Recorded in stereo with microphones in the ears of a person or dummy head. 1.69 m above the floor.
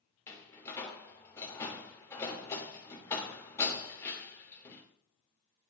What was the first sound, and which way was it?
A door slam, 15° left (ahead or behind).